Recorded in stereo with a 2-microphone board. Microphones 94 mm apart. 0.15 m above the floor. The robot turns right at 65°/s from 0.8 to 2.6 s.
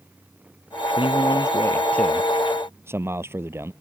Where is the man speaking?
100° left; by 3.7 s 155° right.